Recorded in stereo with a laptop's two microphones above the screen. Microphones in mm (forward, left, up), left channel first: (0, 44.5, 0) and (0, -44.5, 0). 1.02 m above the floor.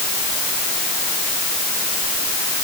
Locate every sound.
Only background noise.